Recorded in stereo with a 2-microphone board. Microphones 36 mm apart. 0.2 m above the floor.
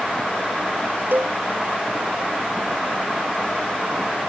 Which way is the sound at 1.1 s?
65° right (ahead or behind).